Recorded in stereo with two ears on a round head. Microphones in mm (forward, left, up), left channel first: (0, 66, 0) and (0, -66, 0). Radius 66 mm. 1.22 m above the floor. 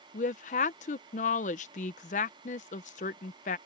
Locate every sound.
0.1 s a woman speaking: 55° left (ahead or behind)